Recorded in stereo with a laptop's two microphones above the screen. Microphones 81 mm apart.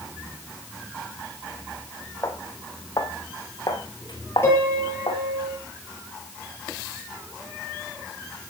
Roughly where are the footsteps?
Left.